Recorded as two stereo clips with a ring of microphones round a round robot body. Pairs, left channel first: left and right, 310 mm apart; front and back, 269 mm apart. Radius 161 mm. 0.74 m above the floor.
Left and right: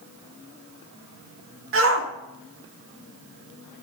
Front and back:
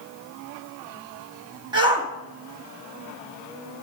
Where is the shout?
115° right, 1.2 m.